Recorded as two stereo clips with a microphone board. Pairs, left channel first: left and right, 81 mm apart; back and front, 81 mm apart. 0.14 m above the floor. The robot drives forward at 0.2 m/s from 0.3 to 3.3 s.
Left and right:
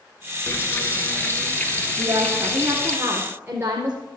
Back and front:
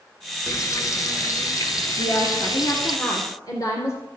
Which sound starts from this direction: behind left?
Frying, at 0.5 s.